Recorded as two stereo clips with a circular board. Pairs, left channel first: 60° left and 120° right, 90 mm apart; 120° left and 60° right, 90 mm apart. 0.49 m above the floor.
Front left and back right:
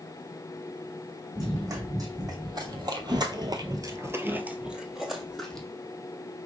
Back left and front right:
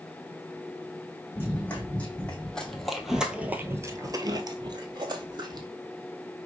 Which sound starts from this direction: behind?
Running footsteps, at 1.4 s.